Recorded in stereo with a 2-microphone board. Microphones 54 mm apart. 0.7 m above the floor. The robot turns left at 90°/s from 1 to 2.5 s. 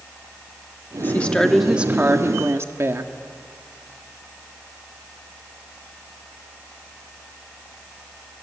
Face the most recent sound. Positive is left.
turn(degrees=-90)